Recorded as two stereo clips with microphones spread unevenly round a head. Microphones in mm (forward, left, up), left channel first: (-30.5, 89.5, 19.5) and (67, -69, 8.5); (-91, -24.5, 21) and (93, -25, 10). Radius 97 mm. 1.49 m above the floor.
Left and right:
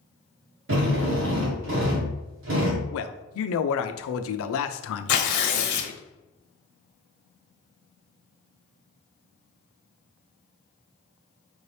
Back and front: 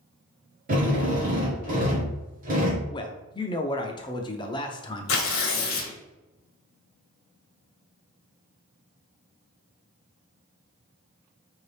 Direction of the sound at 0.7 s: 45° right.